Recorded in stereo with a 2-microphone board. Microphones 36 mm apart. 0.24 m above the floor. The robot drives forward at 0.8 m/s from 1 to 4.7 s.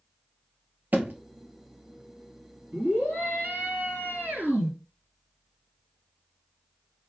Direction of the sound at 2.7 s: 50° right (ahead or behind).